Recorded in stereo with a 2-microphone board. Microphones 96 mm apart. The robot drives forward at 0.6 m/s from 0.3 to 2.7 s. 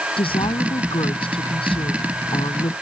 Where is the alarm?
I don't hear an alarm.